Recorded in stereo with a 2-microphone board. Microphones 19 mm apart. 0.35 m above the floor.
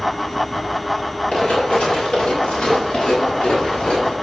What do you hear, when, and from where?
1.3 s running footsteps: 85° left, 7.5 m; by 4.1 s 80° left, 9.5 m